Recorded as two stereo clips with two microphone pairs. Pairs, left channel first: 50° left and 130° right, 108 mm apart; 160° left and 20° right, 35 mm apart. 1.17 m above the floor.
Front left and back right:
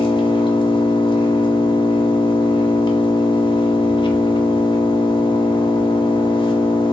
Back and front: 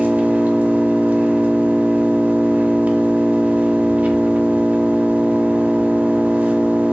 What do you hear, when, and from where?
0.0 s an engine running: 15° left, 0.7 m